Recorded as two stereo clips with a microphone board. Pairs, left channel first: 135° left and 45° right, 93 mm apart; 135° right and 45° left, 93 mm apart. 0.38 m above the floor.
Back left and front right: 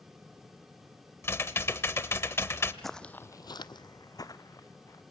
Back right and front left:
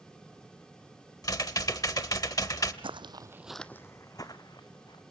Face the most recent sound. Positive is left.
turn(degrees=-170)